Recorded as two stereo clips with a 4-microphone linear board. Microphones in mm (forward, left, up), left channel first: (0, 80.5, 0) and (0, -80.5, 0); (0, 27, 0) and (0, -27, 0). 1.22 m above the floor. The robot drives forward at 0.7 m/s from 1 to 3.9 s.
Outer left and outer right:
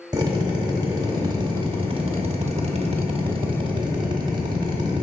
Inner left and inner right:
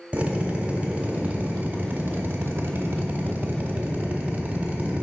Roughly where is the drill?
Right.